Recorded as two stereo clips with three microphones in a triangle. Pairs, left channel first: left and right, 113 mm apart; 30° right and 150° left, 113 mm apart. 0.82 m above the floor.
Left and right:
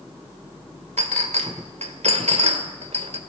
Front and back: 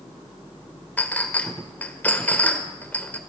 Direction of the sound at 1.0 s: 105° right.